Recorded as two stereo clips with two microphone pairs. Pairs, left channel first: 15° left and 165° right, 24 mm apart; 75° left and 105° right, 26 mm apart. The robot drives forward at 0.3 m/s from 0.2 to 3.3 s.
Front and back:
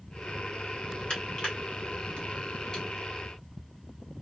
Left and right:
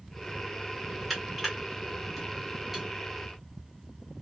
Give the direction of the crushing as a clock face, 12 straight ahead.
1 o'clock.